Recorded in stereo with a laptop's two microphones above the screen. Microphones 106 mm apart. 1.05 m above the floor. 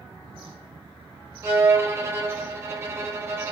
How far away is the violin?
About 0.6 m.